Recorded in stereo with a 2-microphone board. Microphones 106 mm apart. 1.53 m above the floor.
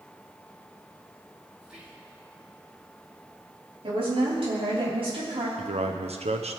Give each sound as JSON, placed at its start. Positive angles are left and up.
{"t": 1.6, "sound": "whispering", "side_deg": -10, "distance_m": 2.5}
{"t": 3.8, "sound": "a woman speaking", "side_deg": -60, "distance_m": 4.5}
{"t": 5.6, "sound": "a man speaking", "side_deg": -75, "distance_m": 0.9}